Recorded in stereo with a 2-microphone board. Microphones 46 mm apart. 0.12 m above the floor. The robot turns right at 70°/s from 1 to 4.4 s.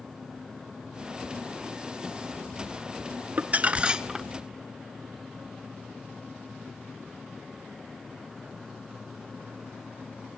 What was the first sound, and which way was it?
Crumpling, 70° right.